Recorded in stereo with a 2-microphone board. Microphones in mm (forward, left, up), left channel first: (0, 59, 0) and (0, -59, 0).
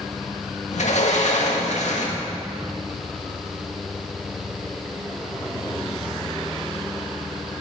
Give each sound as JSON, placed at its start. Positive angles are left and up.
{"t": 0.7, "sound": "a sliding door", "side_deg": 75, "distance_m": 1.9}